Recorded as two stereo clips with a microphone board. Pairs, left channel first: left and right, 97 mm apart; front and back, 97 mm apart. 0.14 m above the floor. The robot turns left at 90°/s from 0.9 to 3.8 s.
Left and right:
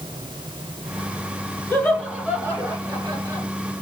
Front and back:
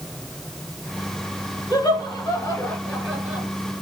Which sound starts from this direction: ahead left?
Laughter, at 1.7 s.